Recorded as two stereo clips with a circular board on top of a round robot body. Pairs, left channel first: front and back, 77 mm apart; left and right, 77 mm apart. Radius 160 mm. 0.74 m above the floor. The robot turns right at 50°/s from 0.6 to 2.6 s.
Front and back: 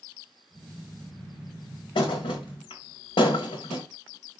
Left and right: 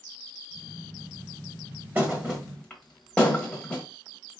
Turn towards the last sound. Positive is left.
turn(degrees=10)